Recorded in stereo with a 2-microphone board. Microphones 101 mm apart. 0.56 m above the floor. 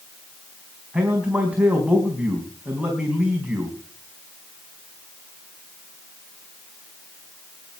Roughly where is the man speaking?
Centre.